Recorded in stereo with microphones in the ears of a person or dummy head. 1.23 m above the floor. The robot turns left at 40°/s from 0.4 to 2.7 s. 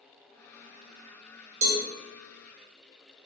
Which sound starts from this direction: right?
A cowbell, at 1.6 s.